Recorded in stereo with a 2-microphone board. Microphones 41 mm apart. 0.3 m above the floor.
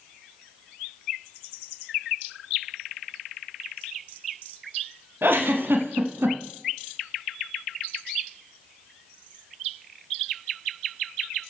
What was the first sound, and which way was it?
A giggle, 65° right (ahead or behind).